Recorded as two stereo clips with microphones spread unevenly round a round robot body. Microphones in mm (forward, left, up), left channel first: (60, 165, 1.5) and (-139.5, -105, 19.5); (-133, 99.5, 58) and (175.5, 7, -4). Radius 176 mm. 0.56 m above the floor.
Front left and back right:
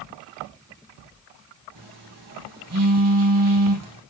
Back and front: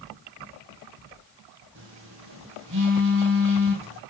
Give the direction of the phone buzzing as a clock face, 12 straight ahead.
3 o'clock.